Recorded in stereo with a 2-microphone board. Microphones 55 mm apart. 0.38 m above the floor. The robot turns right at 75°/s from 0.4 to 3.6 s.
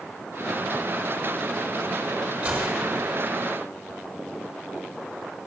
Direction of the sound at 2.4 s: 125° right.